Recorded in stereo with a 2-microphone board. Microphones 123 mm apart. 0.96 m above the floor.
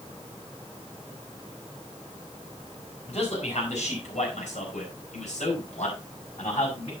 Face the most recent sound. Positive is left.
turn(degrees=65)  # may be behind; listen again after turning